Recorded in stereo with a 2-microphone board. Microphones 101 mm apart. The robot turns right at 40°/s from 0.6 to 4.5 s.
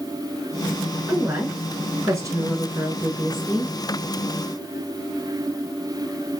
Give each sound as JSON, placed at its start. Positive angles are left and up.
{"t": 1.1, "sound": "a woman speaking", "side_deg": -20, "distance_m": 1.3}